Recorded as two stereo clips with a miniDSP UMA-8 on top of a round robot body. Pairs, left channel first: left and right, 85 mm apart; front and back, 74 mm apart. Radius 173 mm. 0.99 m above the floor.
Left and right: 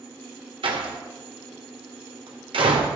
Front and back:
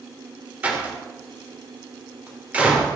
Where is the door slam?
110° right, 2 m.